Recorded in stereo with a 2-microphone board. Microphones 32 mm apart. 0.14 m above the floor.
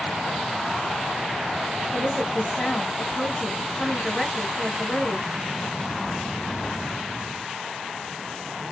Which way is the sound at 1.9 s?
10° left (ahead or behind).